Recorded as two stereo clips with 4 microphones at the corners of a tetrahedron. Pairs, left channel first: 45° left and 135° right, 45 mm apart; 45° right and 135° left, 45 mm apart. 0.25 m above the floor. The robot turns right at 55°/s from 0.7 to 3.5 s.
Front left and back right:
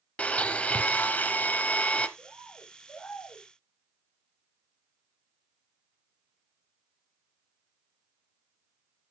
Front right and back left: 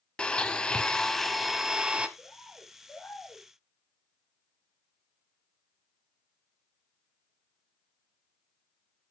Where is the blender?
10° left, 0.9 m; by 2.1 s 90° left, 0.9 m.